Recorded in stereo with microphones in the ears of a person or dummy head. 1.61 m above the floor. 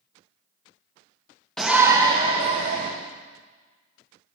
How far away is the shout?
About 0.5 m.